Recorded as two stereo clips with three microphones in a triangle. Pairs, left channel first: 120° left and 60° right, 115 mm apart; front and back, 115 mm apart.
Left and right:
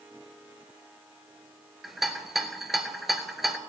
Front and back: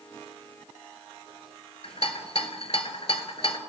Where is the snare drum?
I don't hear a snare drum.